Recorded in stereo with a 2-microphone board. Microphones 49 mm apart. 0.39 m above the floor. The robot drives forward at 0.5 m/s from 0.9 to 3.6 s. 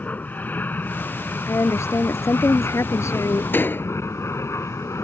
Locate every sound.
0.0 s an aircraft: 35° left (ahead or behind); by 5.0 s 65° left (ahead or behind)
1.5 s a woman speaking: 65° left (ahead or behind); by 3.4 s 70° left (ahead or behind)
3.5 s a door slam: 45° left (ahead or behind)